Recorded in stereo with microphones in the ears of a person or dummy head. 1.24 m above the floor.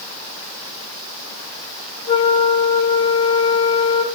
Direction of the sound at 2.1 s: 30° left (ahead or behind).